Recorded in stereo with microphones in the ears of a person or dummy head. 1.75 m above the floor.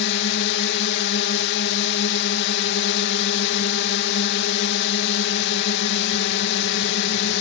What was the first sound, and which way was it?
A drone, 60° left (ahead or behind).